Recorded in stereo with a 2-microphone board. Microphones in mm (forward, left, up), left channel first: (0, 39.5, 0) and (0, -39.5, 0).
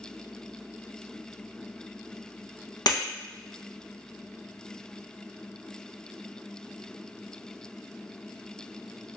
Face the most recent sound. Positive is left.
turn(degrees=65)  # may be behind; listen again after turning